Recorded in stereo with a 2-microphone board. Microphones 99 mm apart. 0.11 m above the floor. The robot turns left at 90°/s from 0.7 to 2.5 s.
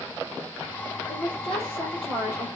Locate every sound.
1.1 s a woman speaking: 80° left, 2.5 m; by 2.5 s 45° right, 2.5 m